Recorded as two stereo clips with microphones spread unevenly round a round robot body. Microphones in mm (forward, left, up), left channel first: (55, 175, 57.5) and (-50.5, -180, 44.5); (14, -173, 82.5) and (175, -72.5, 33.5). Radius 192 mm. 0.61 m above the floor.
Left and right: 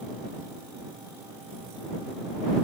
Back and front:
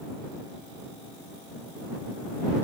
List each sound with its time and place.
Only background noise.